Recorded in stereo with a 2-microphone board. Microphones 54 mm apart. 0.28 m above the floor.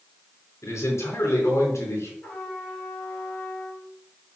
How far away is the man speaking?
About 3.5 m.